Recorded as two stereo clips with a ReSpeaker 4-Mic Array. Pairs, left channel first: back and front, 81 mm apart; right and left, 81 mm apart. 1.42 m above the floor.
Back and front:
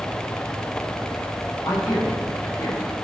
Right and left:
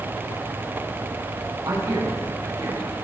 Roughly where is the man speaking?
Behind left.